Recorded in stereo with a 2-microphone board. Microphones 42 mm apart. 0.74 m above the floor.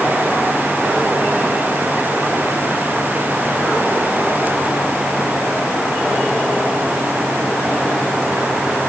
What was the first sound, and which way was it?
Only background noise.